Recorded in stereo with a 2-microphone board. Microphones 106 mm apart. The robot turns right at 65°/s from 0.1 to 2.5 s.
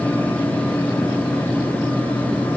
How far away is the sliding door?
No sliding door in this recording.